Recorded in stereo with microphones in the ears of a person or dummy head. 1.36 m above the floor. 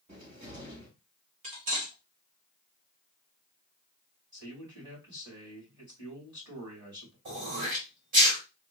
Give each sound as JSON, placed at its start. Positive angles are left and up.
{"t": 0.1, "sound": "a cupboard door", "side_deg": -45, "distance_m": 2.5}
{"t": 1.4, "sound": "cutlery clinking", "side_deg": -45, "distance_m": 1.3}
{"t": 4.3, "sound": "a man speaking", "side_deg": -20, "distance_m": 2.5}
{"t": 7.2, "sound": "throat clearing", "side_deg": -45, "distance_m": 1.5}